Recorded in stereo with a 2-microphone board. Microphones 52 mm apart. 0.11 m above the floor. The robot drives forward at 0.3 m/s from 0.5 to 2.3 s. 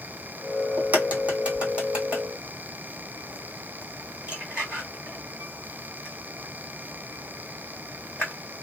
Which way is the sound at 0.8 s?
30° right (ahead or behind).